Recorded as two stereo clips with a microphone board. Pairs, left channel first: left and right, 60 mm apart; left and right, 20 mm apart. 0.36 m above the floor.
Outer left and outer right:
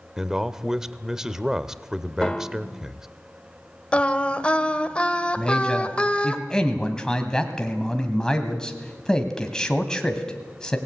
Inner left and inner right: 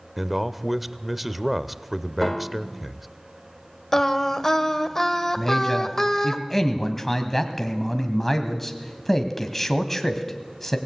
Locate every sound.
0.2 s a man speaking: 10° right (ahead or behind), 0.9 m
2.2 s a piano: 20° left (ahead or behind), 1.3 m
3.9 s singing: 20° left (ahead or behind), 1.4 m
5.4 s a man speaking: 10° left (ahead or behind), 2 m